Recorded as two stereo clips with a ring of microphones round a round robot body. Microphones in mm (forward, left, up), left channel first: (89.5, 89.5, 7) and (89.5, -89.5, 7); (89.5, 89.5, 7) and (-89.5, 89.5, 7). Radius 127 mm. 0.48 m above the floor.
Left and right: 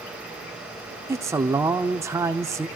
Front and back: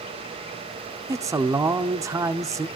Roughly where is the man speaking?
Behind right.